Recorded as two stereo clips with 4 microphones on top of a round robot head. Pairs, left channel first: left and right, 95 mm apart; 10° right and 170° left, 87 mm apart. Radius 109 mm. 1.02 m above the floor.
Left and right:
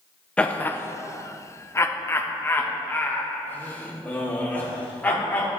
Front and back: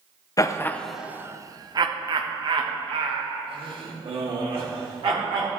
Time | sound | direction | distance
0.4 | laughter | 15° left | 0.6 m